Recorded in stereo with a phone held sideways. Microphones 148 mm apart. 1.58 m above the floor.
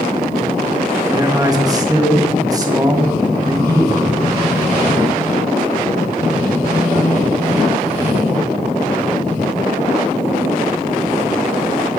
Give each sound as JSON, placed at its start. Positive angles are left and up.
{"t": 1.1, "sound": "a man speaking", "side_deg": -25, "distance_m": 1.8}